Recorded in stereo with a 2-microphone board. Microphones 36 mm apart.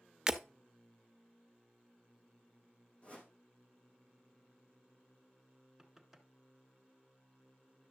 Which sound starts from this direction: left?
A whoosh, at 3.0 s.